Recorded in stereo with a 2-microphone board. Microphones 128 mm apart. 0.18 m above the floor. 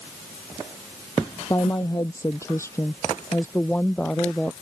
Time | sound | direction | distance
1.5 | a woman speaking | 25° left (ahead or behind) | ?